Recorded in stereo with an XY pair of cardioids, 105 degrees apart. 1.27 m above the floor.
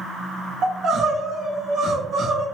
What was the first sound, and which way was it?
Crying, 60° right.